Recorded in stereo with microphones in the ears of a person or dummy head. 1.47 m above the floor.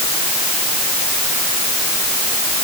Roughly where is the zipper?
I don't hear a zipper.